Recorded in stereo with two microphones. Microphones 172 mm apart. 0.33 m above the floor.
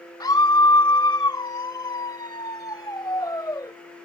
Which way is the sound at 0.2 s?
25° left (ahead or behind).